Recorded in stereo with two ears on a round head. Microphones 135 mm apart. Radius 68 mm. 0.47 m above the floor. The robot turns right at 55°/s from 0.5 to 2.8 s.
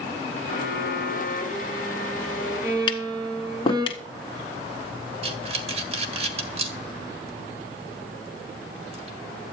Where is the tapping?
35° left (ahead or behind), 1.5 m.